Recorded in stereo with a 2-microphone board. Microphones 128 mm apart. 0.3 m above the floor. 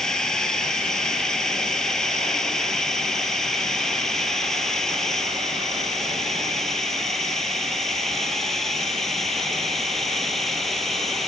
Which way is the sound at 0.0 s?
5° left (ahead or behind).